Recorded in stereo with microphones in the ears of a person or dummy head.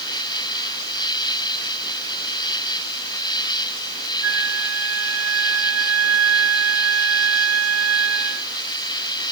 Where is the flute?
85° right.